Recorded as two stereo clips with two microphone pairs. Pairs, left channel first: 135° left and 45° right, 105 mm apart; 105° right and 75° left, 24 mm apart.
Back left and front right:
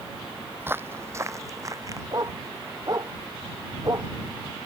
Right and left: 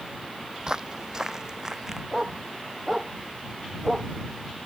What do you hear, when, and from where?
0.6 s footsteps: 20° left; by 2.0 s 10° left
2.1 s a dog barking: 5° left